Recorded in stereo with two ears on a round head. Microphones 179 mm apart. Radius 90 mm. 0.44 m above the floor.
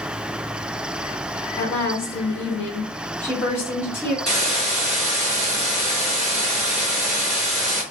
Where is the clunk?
I don't hear a clunk.